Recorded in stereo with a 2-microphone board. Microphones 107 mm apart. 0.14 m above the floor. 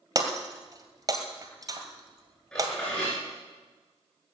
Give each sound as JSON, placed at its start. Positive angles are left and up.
{"t": 0.1, "sound": "breaking glass", "side_deg": -30, "distance_m": 2.0}
{"t": 2.5, "sound": "dishes clattering", "side_deg": 10, "distance_m": 9.0}